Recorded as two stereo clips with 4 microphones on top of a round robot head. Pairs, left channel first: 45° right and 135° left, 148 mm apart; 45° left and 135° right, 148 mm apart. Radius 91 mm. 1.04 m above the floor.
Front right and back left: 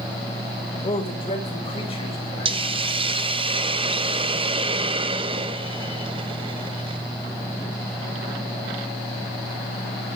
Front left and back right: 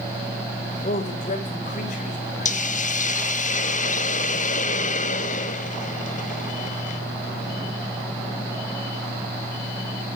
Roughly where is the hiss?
Left.